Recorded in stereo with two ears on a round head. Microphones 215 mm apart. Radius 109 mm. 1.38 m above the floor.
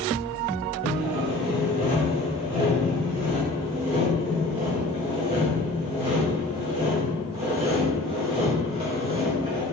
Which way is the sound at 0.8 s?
25° right (ahead or behind).